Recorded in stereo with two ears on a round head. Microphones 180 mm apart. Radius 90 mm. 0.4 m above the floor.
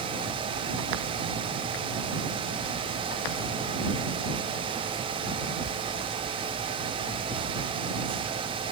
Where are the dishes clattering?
No dishes clattering in this recording.